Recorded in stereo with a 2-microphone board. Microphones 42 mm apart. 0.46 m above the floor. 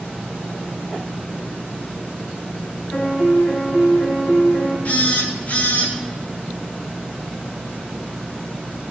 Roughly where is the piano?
Left.